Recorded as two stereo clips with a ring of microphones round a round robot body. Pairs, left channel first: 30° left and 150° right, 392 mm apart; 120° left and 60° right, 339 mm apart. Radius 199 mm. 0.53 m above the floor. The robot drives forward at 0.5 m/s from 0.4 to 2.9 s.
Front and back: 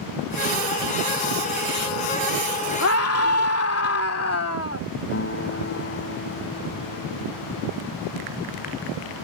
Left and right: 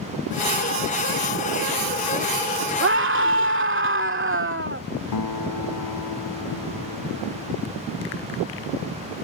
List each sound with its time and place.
2.8 s a scream: 15° right
5.1 s a guitar: 90° left